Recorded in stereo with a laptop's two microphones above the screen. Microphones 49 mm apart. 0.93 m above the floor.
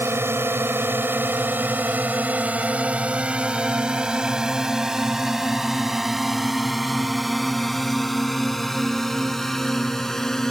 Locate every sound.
0.0 s a drone: 60° right (ahead or behind); by 10.5 s 10° left (ahead or behind)